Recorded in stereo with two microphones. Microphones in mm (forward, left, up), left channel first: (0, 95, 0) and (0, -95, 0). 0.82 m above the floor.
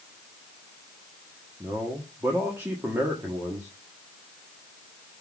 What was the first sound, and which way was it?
A man speaking, 15° right (ahead or behind).